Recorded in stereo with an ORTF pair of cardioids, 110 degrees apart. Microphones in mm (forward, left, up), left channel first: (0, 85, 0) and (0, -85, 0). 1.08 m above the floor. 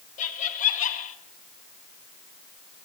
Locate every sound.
0.2 s laughter: 50° left, 1.5 m